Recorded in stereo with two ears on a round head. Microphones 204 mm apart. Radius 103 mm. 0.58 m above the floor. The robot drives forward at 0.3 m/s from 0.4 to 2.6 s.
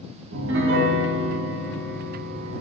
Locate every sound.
0.3 s a piano: 55° right (ahead or behind), 0.7 m; by 2.6 s 50° right (ahead or behind), 0.8 m